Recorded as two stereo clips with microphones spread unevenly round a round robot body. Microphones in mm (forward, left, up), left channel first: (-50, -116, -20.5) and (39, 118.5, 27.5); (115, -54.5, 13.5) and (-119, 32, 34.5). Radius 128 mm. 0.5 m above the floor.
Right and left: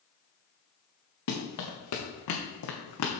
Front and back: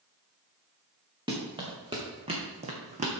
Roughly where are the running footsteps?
Behind right.